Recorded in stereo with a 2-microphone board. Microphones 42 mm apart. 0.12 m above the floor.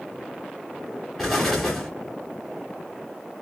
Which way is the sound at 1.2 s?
Centre (ahead or behind).